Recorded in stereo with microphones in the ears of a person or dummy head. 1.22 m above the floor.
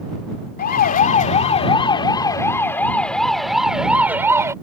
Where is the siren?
40° left (ahead or behind); by 4.5 s 15° right (ahead or behind).